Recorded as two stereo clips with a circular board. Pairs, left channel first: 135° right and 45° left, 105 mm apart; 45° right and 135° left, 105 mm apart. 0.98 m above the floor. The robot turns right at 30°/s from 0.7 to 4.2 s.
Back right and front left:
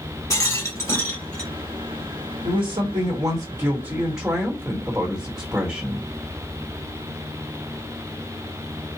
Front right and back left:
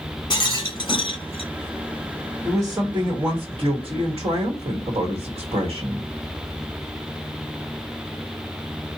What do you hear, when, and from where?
0.3 s a rattle: 75° right, 1.0 m; by 1.5 s 55° right, 1.0 m
2.4 s a woman speaking: 60° left, 1.3 m; by 6.1 s 115° left, 1.3 m